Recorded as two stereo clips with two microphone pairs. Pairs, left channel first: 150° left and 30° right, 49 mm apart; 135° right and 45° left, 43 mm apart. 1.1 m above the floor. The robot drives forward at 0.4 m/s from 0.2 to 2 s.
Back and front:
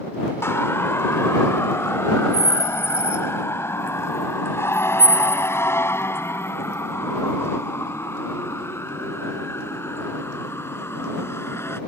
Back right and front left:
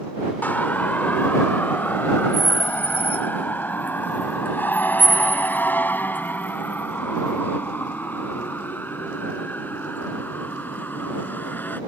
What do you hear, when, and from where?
0.4 s a siren: 175° left; by 11.8 s straight behind